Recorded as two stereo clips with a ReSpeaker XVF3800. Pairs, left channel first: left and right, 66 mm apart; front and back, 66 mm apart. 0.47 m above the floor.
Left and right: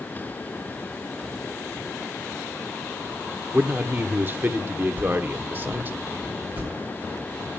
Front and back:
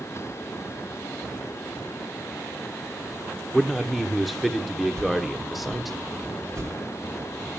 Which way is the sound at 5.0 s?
150° right.